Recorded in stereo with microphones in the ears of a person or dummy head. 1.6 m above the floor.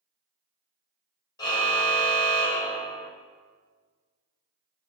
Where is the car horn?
25° left (ahead or behind), 4.5 m.